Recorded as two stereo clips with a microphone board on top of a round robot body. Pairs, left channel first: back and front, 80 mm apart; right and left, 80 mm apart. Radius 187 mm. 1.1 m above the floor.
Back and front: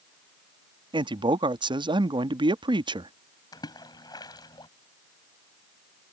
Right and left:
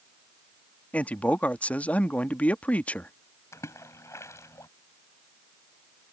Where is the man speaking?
15° right.